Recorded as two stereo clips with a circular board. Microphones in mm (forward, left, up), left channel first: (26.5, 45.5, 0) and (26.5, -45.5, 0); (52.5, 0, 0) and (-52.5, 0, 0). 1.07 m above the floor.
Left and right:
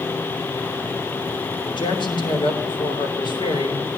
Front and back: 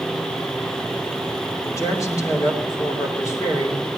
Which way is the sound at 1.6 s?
60° left.